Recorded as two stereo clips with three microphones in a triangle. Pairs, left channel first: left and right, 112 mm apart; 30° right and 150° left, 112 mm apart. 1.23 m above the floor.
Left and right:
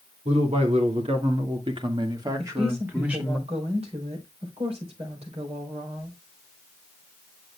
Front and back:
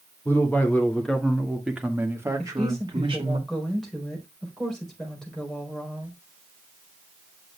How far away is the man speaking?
About 2.5 m.